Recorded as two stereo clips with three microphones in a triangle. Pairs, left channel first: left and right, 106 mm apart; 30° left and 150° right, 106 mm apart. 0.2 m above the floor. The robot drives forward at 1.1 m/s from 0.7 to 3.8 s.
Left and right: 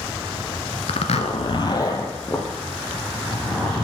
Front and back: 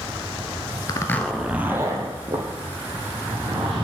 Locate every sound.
0.9 s a zipper: 80° left, 0.7 m; by 3.9 s 170° left, 3 m